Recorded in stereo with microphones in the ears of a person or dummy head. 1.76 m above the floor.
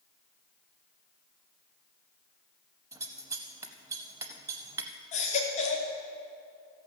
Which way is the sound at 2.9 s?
15° right (ahead or behind).